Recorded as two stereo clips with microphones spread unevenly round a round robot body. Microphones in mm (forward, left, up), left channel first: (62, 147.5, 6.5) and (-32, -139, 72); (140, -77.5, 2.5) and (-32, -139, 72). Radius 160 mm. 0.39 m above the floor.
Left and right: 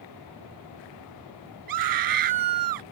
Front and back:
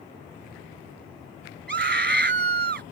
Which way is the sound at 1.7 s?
130° right.